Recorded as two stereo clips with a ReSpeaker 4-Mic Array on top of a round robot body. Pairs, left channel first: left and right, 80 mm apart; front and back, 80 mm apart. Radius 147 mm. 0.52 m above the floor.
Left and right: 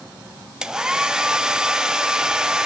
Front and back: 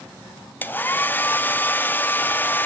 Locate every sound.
0.6 s a hair dryer: 20° right, 1.0 m